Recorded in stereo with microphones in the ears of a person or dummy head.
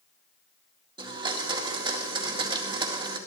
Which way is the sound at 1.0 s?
25° right (ahead or behind).